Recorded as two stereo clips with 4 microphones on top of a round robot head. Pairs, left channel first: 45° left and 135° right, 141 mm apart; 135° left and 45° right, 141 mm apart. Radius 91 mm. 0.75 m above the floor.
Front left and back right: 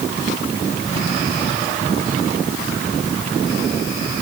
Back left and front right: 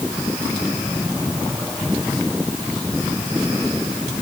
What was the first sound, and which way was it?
Only background noise.